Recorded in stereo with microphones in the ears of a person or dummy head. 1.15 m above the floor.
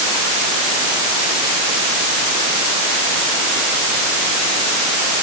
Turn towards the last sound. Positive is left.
No sound to turn to.